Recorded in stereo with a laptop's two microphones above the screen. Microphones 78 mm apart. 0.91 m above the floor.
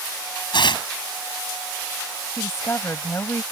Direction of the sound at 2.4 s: 35° left (ahead or behind).